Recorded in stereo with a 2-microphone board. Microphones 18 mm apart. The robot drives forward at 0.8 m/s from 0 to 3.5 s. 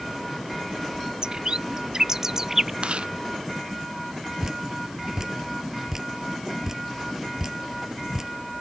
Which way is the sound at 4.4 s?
35° right (ahead or behind).